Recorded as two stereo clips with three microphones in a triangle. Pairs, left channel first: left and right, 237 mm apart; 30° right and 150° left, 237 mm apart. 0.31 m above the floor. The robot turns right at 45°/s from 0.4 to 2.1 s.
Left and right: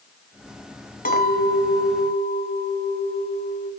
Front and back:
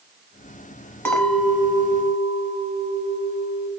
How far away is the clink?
About 1.2 m.